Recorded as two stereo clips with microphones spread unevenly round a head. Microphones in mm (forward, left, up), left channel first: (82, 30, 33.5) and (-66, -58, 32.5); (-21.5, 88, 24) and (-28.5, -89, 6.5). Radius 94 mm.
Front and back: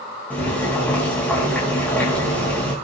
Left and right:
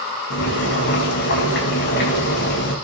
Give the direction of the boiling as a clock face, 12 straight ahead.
8 o'clock.